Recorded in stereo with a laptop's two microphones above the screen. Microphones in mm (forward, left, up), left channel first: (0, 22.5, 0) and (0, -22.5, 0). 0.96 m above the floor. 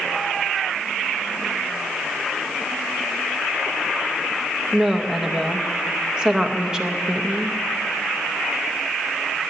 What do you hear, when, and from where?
4.7 s a woman speaking: 15° right (ahead or behind), 0.7 m